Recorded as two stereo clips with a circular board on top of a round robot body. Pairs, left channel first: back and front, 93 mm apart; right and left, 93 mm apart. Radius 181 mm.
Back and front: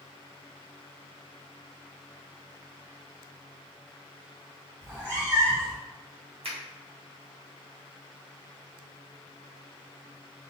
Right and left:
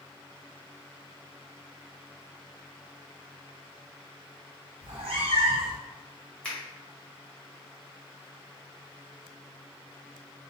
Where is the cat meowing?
70° left, 2 m.